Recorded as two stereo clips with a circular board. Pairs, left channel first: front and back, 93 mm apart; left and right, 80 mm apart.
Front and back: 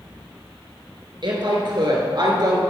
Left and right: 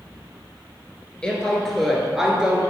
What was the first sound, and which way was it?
A woman speaking, 165° left.